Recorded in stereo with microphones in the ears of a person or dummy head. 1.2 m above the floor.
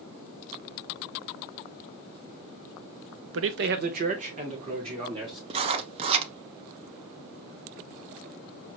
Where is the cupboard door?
No cupboard door in this recording.